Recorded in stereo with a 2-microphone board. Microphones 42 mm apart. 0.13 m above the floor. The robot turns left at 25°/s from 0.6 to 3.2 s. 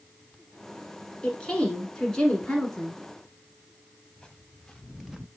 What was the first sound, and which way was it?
A woman speaking, 25° left (ahead or behind).